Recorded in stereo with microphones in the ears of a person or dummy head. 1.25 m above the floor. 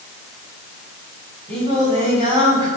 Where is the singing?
30° right (ahead or behind), 7 m.